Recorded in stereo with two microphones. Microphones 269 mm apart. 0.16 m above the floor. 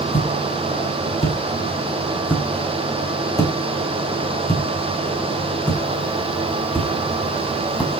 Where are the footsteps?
25° left (ahead or behind), 6.5 m; by 7.9 s centre (ahead or behind), 8 m.